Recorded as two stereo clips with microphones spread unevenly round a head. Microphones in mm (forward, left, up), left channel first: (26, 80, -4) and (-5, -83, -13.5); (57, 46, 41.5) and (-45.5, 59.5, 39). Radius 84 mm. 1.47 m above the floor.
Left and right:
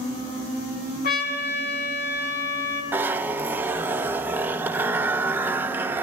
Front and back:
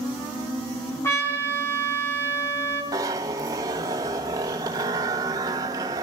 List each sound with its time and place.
1.0 s a trumpet: 55° left, 3.5 m
2.9 s a zipper: 170° right, 0.6 m